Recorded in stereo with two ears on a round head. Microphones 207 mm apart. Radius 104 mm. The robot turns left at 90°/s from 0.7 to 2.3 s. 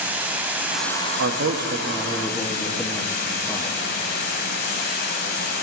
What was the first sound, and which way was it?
Running water, 170° right.